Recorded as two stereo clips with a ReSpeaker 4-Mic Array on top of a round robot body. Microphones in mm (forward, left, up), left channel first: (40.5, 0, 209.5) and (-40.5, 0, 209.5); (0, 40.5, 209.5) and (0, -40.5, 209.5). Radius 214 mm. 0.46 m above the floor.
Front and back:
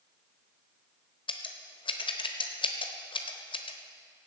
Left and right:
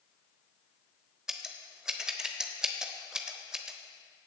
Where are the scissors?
5° right, 1.0 m.